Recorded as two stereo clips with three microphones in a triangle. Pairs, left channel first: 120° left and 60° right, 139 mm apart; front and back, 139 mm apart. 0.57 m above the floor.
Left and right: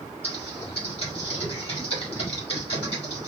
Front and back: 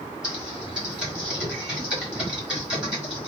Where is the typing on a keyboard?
95° left, 1.3 m.